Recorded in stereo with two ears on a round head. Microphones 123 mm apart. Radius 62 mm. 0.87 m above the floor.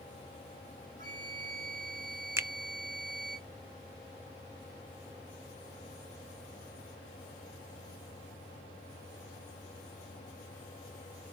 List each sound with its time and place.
1.0 s a flute: 60° right (ahead or behind), 5.5 m
2.4 s a finger snap: 20° right (ahead or behind), 0.6 m